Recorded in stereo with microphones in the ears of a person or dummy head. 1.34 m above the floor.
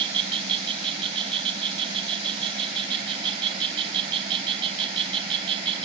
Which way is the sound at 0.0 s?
25° right (ahead or behind).